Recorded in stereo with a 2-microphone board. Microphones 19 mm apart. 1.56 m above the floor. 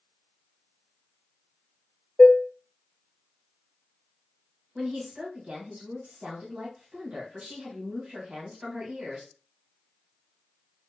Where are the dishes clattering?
25° left (ahead or behind), 0.5 m.